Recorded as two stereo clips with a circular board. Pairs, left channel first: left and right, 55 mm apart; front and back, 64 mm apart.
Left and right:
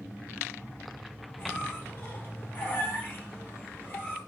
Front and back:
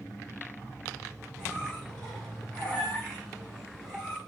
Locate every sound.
1.4 s a squeak: 80° left, 1.3 m